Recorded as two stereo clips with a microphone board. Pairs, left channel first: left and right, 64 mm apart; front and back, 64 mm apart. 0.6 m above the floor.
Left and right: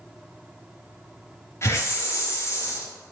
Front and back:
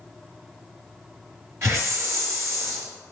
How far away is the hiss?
About 0.9 m.